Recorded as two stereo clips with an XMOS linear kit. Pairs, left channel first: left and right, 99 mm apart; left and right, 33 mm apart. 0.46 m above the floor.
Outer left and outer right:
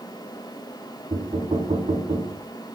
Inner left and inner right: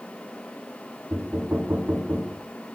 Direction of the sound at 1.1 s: 75° right (ahead or behind).